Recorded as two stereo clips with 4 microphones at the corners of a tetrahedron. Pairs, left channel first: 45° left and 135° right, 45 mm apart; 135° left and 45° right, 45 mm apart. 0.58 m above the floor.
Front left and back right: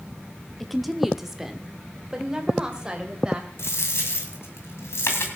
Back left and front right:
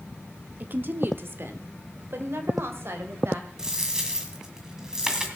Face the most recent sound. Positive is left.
turn(degrees=30)